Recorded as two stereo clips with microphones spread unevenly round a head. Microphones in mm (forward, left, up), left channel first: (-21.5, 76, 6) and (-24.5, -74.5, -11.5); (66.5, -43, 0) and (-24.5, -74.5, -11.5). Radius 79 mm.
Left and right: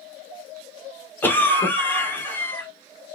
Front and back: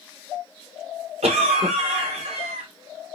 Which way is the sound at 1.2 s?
165° left.